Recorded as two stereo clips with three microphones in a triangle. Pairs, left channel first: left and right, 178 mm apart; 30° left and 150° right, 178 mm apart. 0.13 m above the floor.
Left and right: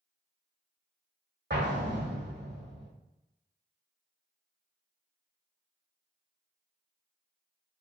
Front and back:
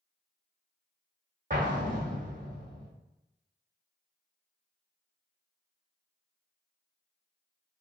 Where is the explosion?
105° right, 1.3 m.